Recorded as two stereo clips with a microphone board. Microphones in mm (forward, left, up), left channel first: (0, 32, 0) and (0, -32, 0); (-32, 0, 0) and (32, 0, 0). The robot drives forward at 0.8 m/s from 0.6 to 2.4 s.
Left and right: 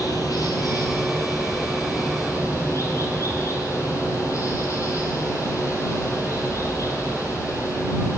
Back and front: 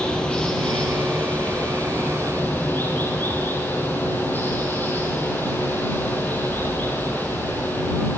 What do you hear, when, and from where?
0.0 s running water: 105° left, 3.5 m; by 8.2 s 125° left, 4 m